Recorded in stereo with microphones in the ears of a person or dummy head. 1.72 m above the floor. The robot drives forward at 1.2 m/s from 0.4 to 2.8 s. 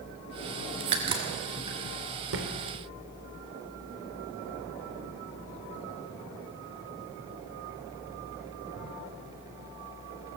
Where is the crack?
30° right (ahead or behind), 1.8 m; by 1.8 s 20° right (ahead or behind), 2.5 m.